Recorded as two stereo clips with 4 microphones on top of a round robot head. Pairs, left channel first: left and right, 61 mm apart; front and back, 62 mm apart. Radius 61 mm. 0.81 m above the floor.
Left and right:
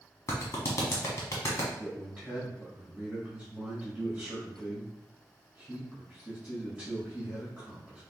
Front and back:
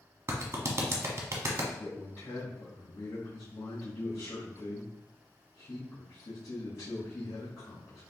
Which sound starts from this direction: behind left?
A clap, at 0.3 s.